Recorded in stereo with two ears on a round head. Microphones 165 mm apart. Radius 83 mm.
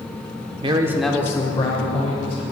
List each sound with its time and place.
0.6 s a man speaking: 30° right (ahead or behind), 0.8 m; by 2.4 s 35° left (ahead or behind), 2 m